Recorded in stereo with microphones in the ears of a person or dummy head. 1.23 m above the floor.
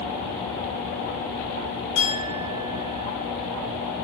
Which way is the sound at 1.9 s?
75° left (ahead or behind).